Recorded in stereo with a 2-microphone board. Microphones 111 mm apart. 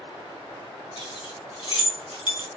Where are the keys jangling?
50° left (ahead or behind), 2 m; by 2.5 s 40° left (ahead or behind), 1.4 m.